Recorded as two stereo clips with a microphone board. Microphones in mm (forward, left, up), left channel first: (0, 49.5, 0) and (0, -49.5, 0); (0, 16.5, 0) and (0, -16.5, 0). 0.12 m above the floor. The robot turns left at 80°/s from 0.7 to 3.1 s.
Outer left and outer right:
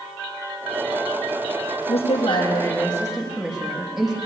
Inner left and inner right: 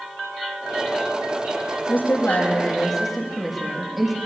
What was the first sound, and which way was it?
A woman speaking, 100° left.